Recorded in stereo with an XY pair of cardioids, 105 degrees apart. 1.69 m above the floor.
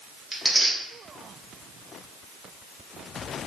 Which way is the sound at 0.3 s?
10° right.